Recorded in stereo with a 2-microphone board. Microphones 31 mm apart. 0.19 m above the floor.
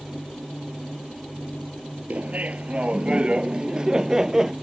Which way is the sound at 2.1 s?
50° right (ahead or behind).